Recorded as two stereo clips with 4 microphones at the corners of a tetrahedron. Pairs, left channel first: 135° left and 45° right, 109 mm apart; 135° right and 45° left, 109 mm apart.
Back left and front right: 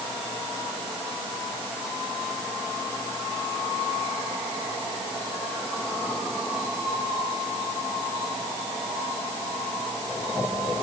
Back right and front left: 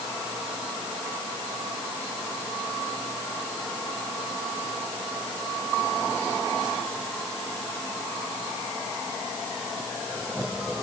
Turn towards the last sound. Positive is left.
No sound to turn to.